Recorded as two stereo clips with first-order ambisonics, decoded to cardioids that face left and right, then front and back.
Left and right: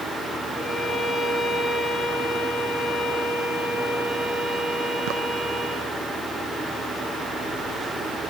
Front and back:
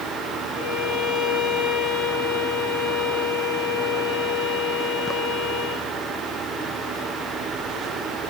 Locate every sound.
0.5 s a violin: 25° left, 6.5 m